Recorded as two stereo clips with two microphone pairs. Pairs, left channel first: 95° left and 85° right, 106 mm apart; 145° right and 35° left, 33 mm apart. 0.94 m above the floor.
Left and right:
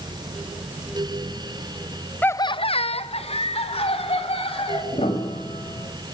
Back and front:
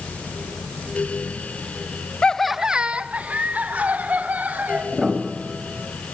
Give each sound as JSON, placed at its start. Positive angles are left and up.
{"t": 2.2, "sound": "laughter", "azimuth_deg": 165, "distance_m": 0.5}
{"t": 4.9, "sound": "a piano", "azimuth_deg": 110, "distance_m": 4.0}